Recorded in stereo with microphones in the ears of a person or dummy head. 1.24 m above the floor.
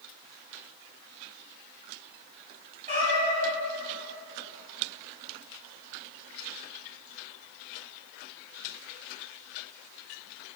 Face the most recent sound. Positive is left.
turn(degrees=-45)  # may be behind; listen again after turning